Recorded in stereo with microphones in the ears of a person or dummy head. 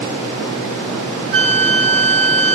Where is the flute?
30° right (ahead or behind), 1.6 m.